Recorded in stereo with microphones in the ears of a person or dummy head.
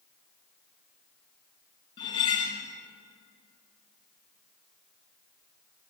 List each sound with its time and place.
2.0 s cutlery clinking: 20° left (ahead or behind), 0.6 m